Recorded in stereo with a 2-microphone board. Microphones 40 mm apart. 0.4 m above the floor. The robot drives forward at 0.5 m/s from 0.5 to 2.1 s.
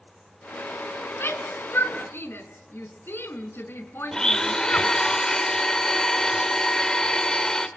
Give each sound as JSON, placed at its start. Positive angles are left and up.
{"t": 1.2, "sound": "a shout", "side_deg": 75, "distance_m": 4.5}
{"t": 4.1, "sound": "a blender", "side_deg": 20, "distance_m": 1.6}